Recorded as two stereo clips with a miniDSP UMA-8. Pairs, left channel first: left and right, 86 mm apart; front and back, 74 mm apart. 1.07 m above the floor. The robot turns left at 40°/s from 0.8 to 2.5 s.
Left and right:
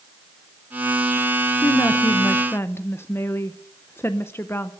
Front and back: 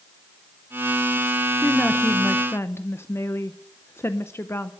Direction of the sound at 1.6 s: 75° left.